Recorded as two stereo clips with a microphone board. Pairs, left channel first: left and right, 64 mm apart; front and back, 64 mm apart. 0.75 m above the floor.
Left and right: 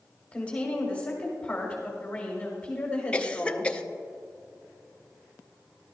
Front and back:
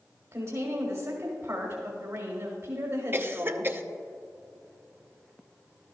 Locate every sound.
0.3 s a woman speaking: 155° left, 1.9 m
3.1 s a cough: 150° left, 0.6 m